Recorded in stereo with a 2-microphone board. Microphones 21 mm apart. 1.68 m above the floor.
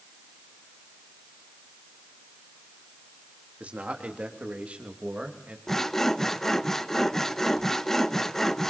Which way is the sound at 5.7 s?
15° left (ahead or behind).